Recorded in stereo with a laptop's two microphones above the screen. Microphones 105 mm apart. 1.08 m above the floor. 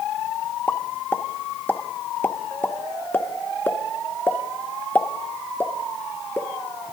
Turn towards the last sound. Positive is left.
turn(degrees=15)  # may be behind; listen again after turning